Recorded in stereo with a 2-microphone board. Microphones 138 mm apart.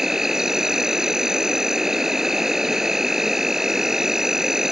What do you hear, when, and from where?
0.0 s an insect: 5° right (ahead or behind)